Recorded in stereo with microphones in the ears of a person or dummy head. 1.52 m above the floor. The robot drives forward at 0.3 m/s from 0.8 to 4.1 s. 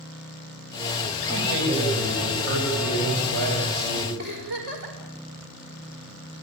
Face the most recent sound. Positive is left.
turn(degrees=-55)  # may be behind; listen again after turning